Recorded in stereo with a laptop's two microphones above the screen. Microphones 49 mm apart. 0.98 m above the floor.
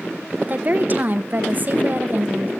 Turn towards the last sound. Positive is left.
turn(degrees=-40)  # may be behind; listen again after turning